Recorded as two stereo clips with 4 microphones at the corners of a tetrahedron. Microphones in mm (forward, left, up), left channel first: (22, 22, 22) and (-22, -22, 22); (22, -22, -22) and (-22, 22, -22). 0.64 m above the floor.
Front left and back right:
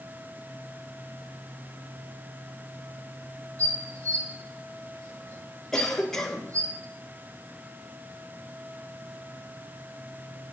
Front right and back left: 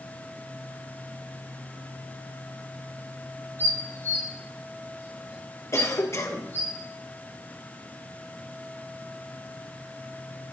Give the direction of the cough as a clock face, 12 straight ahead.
1 o'clock.